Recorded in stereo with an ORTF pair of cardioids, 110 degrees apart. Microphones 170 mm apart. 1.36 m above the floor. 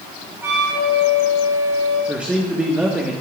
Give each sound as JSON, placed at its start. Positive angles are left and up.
{"t": 0.4, "sound": "a flute", "azimuth_deg": -15, "distance_m": 3.5}
{"t": 2.1, "sound": "a man speaking", "azimuth_deg": -10, "distance_m": 1.0}